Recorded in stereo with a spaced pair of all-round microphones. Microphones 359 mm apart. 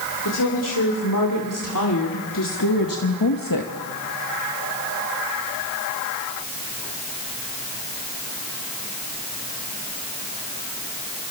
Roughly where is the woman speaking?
Left.